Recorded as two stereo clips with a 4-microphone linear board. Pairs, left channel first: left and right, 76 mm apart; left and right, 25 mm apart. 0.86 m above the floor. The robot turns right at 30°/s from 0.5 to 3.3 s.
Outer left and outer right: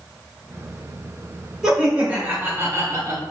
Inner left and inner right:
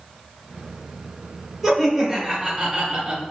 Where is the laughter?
170° right, 1.3 m; by 3.2 s 125° right, 1.3 m.